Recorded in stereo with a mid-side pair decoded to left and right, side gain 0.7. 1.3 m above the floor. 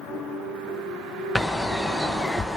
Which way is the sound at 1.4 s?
15° left.